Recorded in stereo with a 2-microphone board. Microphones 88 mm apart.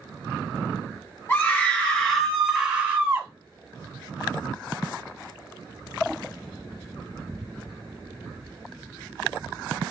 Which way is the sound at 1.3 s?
25° left (ahead or behind).